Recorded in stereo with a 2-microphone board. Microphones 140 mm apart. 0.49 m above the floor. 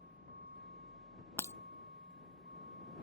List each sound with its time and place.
0.0 s a vehicle: 80° right
1.4 s breaking glass: 20° left (ahead or behind)